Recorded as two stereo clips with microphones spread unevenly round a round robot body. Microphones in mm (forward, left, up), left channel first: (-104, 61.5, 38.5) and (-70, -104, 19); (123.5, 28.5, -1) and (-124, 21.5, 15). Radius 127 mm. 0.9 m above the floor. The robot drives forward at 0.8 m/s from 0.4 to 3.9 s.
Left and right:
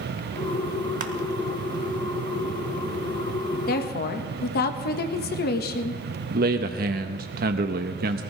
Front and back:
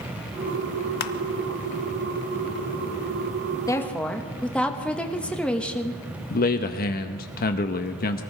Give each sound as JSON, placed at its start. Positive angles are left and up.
{"t": 1.0, "sound": "crushing", "azimuth_deg": -35, "distance_m": 0.7}
{"t": 3.7, "sound": "a woman speaking", "azimuth_deg": 75, "distance_m": 1.2}
{"t": 6.3, "sound": "a man speaking", "azimuth_deg": -50, "distance_m": 0.7}